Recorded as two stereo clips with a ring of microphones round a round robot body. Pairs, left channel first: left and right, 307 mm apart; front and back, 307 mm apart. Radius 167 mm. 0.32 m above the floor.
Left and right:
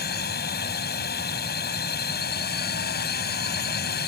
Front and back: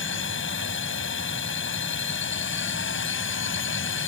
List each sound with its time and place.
0.0 s a drone: 40° left